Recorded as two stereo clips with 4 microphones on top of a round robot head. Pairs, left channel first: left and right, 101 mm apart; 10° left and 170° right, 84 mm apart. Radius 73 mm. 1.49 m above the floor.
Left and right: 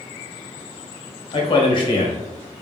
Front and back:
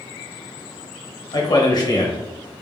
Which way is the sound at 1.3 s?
50° left.